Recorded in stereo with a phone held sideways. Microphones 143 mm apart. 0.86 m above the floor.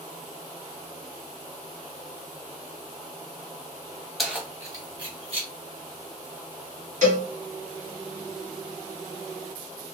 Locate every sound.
4.2 s keys jangling: centre (ahead or behind), 0.7 m; by 5.5 s 40° right (ahead or behind), 1.6 m
7.0 s a cowbell: 65° right (ahead or behind), 1.3 m